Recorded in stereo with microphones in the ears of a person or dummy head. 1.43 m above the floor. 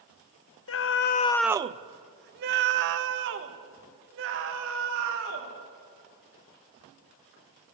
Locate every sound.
0.7 s a scream: 65° left (ahead or behind), 0.8 m; by 5.5 s 65° right (ahead or behind), 4.5 m